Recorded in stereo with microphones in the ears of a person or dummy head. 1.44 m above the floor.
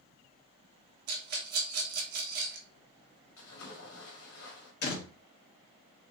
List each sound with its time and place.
1.1 s a rattle: 55° right (ahead or behind), 1.1 m
3.4 s a splash: 75° left (ahead or behind), 2.0 m
4.8 s a door slam: 60° left (ahead or behind), 1.4 m